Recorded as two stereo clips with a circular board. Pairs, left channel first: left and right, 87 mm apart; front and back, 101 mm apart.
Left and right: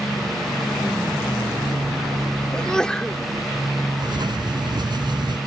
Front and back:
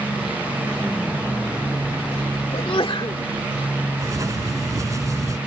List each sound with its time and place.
2.5 s a sneeze: 10° left
4.0 s writing: 125° right